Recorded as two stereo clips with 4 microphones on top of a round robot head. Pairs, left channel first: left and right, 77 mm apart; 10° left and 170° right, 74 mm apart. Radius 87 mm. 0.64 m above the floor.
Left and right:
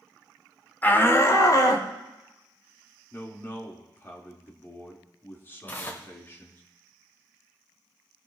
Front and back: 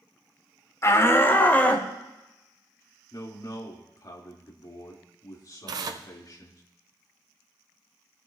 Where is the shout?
35° left, 1.7 m; by 1.9 s 75° left, 2.5 m.